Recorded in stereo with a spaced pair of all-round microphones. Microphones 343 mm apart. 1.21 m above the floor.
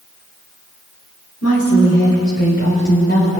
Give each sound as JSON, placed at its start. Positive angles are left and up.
{"t": 1.4, "sound": "a woman speaking", "side_deg": 45, "distance_m": 3.5}